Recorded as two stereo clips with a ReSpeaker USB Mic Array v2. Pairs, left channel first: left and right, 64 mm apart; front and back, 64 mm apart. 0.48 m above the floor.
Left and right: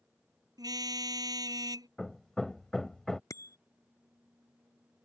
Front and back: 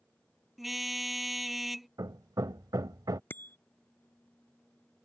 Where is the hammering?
170° left.